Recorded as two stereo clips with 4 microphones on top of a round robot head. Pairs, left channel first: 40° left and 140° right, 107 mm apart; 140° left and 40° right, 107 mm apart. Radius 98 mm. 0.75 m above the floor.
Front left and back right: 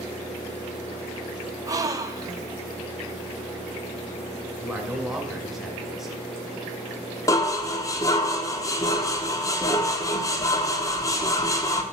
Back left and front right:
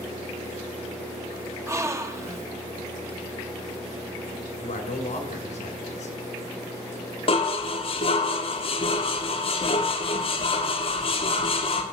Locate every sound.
1.7 s a gasp: 95° right, 1.2 m
4.6 s a man speaking: 135° left, 2.5 m
7.3 s dishes clattering: 100° left, 1.2 m